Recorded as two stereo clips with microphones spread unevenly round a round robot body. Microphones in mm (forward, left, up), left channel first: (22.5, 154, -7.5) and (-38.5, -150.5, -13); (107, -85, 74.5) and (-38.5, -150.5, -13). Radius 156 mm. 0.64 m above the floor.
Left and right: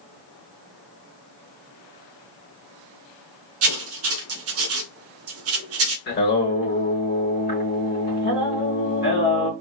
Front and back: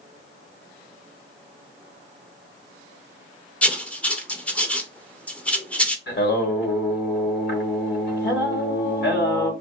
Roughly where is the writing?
Right.